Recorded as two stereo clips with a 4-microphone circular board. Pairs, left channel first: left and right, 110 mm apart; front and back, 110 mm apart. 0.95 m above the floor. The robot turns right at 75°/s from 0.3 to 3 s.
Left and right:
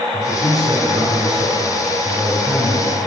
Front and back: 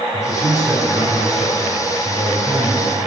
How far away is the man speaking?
About 3.5 m.